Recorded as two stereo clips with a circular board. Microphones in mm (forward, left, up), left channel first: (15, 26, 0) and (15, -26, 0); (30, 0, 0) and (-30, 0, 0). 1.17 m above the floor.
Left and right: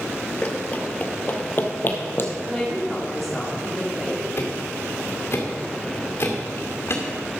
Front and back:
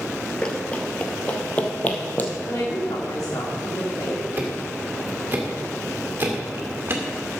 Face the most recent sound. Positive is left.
turn(degrees=125)